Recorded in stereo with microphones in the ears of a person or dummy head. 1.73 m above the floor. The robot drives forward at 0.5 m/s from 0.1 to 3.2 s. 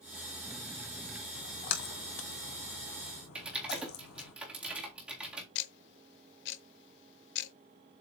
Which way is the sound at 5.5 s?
60° left (ahead or behind).